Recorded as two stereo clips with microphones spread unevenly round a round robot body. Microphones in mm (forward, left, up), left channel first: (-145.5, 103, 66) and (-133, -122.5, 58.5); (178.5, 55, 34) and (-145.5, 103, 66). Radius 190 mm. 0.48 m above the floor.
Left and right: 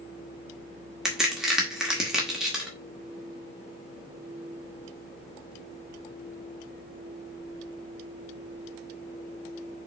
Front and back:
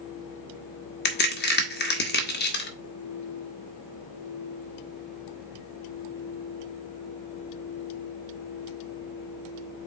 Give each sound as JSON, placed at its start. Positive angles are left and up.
{"t": 1.1, "sound": "a crack", "azimuth_deg": -5, "distance_m": 1.6}